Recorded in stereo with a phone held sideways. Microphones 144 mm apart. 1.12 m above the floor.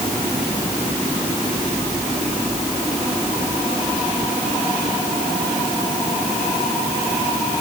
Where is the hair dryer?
No hair dryer in this recording.